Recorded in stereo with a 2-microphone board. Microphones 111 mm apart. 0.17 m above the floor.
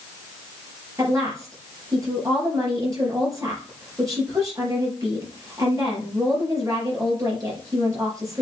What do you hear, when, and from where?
1.0 s a woman speaking: 30° right (ahead or behind), 4 m